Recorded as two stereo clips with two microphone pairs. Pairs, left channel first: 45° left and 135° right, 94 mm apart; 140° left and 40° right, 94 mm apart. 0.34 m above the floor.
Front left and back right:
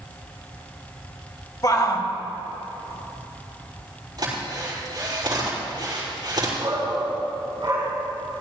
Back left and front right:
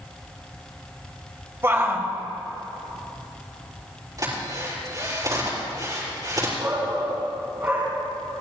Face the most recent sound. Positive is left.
turn(degrees=-95)